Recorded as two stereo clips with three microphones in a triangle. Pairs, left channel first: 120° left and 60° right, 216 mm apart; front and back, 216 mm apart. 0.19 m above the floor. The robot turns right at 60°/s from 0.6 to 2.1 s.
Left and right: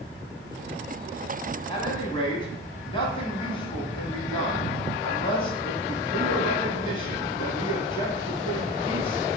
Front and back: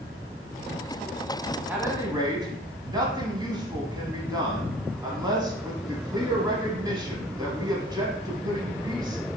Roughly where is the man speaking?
Behind left.